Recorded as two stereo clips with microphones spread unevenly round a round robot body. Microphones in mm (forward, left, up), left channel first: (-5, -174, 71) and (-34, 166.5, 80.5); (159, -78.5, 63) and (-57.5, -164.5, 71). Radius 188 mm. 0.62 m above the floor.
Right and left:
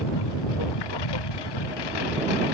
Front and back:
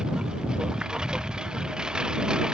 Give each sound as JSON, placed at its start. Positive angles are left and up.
{"t": 0.0, "sound": "a lawn mower", "azimuth_deg": -70}